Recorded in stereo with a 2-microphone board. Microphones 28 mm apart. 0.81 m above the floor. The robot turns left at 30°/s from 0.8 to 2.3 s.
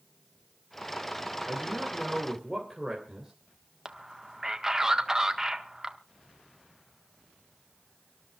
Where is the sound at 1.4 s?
30° right (ahead or behind), 3.5 m; by 3.3 s 5° right (ahead or behind), 3.5 m.